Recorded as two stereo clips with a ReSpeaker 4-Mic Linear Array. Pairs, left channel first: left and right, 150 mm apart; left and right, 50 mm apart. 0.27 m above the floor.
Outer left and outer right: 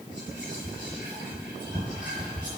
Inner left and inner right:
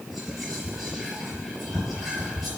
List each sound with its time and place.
0.1 s whispering: 10° right (ahead or behind), 4.5 m